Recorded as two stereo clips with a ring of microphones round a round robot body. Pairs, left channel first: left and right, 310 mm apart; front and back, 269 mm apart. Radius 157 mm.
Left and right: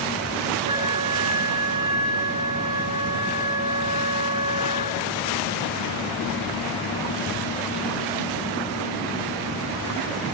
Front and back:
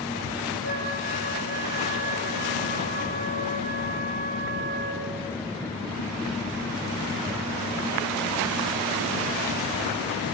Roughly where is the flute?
Behind right.